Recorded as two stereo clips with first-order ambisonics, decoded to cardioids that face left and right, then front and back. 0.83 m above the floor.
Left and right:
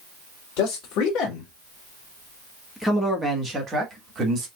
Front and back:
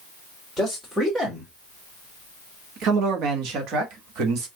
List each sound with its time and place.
0.6 s a man speaking: 90° left, 1.5 m; by 4.5 s 145° right, 1.6 m